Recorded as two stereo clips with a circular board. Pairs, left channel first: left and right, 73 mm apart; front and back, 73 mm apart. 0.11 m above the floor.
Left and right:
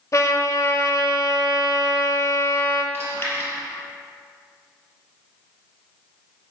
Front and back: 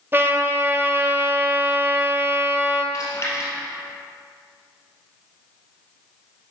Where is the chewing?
35° left, 2.5 m.